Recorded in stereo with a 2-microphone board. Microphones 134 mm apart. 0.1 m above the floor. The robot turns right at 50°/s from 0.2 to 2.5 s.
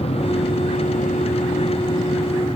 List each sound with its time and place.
0.0 s an aircraft: 55° left; by 2.6 s 170° left